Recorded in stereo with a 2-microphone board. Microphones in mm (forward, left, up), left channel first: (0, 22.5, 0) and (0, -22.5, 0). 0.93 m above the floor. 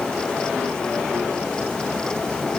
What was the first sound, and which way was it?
Only background noise.